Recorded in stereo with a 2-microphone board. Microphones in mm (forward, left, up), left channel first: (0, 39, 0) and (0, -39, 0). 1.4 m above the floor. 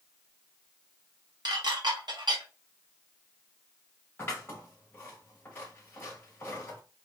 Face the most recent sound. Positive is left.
turn(degrees=30)  # may be behind; listen again after turning